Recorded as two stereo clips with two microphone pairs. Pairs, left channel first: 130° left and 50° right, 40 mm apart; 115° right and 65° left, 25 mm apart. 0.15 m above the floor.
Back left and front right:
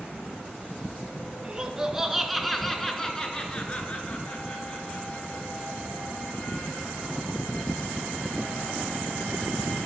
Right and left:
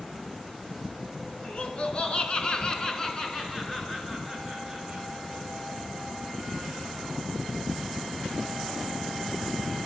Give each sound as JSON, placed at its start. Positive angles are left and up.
{"t": 1.4, "sound": "laughter", "azimuth_deg": -105, "distance_m": 2.0}